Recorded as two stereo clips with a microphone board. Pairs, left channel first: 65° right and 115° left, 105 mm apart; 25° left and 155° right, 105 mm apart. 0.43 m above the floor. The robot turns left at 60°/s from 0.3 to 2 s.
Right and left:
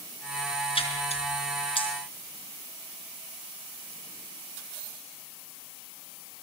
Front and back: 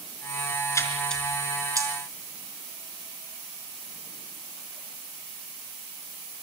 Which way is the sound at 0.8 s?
40° right.